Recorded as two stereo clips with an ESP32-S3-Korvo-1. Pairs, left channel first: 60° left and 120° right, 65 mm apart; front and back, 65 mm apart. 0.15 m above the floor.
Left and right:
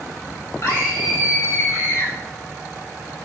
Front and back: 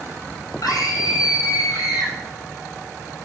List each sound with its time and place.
0.6 s a scream: 25° left, 6 m